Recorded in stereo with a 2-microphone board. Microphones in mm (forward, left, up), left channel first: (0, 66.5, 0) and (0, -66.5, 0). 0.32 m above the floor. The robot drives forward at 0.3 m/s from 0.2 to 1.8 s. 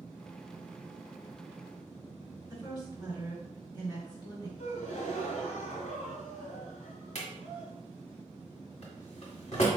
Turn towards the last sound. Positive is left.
turn(degrees=65)  # may be behind; listen again after turning